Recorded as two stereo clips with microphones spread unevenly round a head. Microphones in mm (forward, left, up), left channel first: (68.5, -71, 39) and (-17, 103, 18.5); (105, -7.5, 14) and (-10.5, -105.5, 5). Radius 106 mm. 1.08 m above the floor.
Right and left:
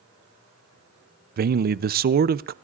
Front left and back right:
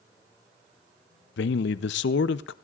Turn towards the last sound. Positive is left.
turn(degrees=70)